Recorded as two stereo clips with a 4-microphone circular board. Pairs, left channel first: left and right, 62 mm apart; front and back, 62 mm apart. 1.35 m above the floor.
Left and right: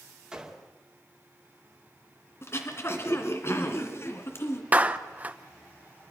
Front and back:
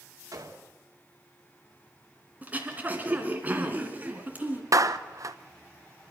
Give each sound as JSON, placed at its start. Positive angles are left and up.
{"t": 0.3, "sound": "a gunshot", "azimuth_deg": -165, "distance_m": 2.5}
{"t": 2.4, "sound": "throat clearing", "azimuth_deg": 125, "distance_m": 2.0}
{"t": 4.7, "sound": "a clap", "azimuth_deg": -155, "distance_m": 0.9}